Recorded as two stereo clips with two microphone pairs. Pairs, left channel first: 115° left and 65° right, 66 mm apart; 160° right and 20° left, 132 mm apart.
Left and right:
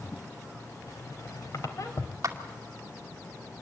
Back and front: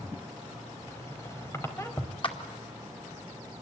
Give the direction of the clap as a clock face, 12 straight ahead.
4 o'clock.